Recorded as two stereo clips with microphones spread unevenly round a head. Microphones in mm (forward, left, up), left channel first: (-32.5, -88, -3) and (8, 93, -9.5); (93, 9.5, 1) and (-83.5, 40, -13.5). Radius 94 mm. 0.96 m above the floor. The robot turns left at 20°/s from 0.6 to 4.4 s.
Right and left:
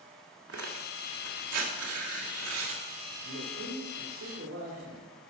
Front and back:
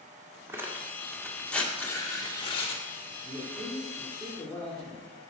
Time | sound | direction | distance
0.5 | tearing paper | 90° left | 1.7 m
3.2 | a man speaking | 90° left | 2.5 m